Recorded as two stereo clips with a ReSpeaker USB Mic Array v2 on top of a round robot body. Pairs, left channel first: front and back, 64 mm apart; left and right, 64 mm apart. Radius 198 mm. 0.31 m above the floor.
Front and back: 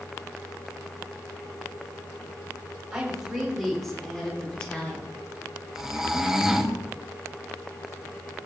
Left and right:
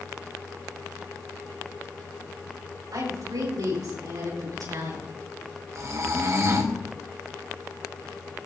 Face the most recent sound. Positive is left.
turn(degrees=-100)